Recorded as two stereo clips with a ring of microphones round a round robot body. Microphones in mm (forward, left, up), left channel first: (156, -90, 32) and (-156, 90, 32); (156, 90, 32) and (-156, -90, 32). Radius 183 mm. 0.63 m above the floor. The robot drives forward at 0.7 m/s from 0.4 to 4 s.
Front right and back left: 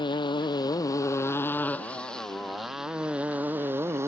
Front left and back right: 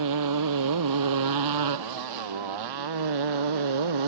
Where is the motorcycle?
110° right; by 4.1 s 125° right.